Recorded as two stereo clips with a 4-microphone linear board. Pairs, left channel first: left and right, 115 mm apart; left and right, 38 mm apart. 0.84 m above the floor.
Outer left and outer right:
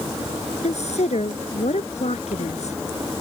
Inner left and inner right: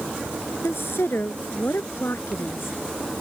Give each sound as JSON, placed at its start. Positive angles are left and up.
{"t": 0.6, "sound": "a woman speaking", "side_deg": 75}